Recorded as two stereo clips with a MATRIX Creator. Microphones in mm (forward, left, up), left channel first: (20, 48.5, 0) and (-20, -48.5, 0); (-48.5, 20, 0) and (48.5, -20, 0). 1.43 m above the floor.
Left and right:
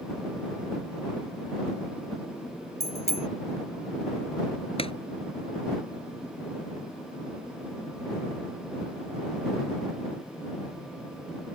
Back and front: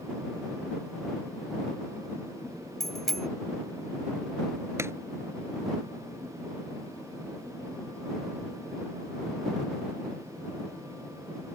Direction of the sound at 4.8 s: 45° left.